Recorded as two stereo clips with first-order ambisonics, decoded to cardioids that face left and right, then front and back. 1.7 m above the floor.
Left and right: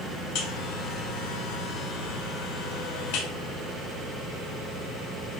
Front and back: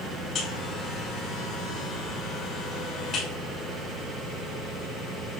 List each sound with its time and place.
0.3 s a buzzer: 60° left, 5 m